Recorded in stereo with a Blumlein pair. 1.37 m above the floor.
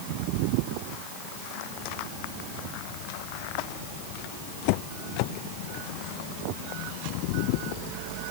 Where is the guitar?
I don't hear a guitar.